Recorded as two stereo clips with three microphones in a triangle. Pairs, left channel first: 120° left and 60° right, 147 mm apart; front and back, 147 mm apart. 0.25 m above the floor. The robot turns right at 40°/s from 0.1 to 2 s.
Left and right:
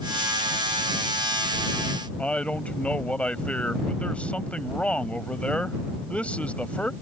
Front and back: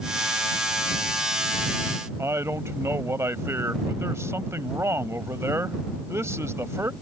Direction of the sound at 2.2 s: Straight behind.